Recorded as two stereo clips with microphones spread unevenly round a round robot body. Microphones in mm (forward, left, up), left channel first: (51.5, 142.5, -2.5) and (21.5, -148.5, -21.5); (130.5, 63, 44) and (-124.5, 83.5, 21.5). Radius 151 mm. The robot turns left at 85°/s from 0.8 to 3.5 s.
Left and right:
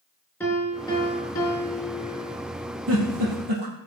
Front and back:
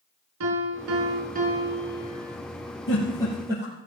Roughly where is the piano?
Behind.